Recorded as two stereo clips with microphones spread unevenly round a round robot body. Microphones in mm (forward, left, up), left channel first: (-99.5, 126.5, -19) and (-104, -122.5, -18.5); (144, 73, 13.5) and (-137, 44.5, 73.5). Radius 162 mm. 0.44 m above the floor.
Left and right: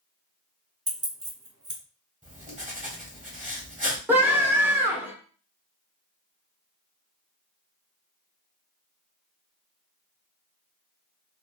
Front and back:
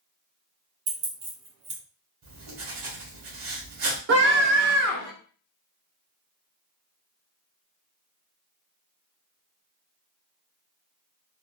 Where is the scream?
165° right, 0.9 m.